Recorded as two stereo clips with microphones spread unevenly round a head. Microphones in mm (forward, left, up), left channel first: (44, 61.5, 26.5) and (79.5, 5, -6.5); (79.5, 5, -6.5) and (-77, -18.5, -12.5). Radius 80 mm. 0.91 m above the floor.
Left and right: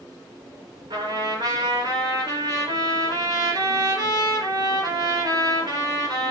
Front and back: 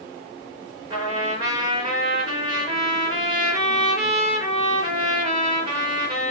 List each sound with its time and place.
0.9 s a trumpet: 110° right, 4 m